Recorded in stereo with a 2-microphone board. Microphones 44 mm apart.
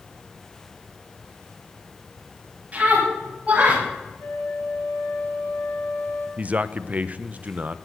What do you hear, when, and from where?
2.7 s a scream: 35° right (ahead or behind), 9.5 m; by 3.8 s 30° right (ahead or behind), 9 m
4.2 s a flute: 70° left (ahead or behind), 7 m
6.4 s a man speaking: 35° right (ahead or behind), 0.8 m